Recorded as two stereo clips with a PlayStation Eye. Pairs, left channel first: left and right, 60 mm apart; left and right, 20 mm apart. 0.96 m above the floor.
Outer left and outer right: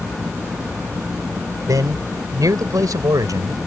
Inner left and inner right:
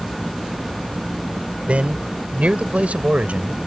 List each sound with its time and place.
1.7 s a man speaking: 75° right (ahead or behind); by 3.6 s 85° right